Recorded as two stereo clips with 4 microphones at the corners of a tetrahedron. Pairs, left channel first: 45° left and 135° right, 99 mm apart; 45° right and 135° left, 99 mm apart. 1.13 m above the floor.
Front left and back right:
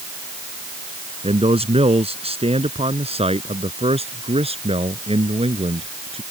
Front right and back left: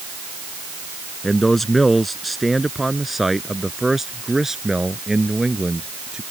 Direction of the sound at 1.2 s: 135° right.